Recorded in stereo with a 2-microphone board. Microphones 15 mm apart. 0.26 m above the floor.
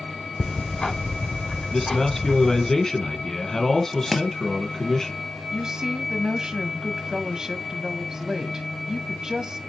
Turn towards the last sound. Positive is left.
turn(degrees=-45)  # may be behind; listen again after turning